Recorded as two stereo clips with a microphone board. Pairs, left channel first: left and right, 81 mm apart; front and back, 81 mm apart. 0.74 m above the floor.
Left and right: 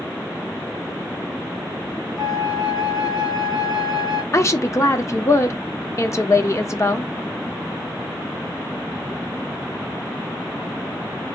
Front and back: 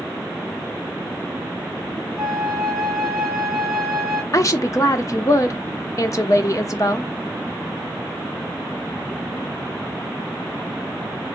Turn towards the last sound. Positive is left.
turn(degrees=40)